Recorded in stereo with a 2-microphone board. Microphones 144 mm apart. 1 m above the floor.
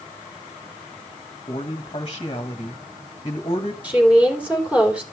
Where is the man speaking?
35° left (ahead or behind), 1.4 m.